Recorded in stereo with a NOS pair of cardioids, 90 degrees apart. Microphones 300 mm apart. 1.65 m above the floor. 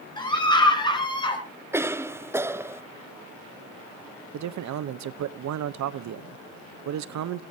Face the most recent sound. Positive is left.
turn(degrees=-65)